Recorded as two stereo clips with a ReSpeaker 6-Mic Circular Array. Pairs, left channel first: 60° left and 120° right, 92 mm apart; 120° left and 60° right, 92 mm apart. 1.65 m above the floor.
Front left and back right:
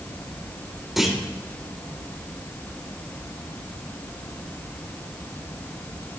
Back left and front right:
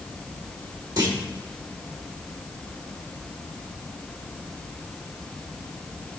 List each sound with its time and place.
1.0 s a clunk: 35° right, 1.8 m